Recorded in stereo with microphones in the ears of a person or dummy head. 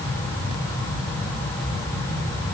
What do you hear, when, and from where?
Only background noise.